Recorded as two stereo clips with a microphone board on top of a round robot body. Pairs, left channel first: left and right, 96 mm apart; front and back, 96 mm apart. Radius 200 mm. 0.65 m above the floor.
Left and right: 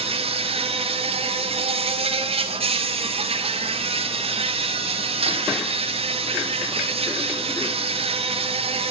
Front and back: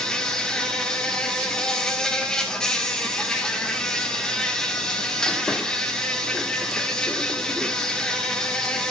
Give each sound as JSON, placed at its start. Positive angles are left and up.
{"t": 0.0, "sound": "an insect", "azimuth_deg": -85, "distance_m": 2.0}